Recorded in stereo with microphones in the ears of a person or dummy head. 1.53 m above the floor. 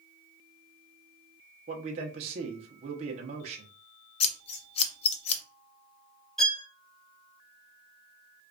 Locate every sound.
1.7 s a man speaking: 35° right (ahead or behind), 0.9 m
4.2 s scissors: 30° left (ahead or behind), 0.5 m
6.4 s a violin: 5° left (ahead or behind), 0.6 m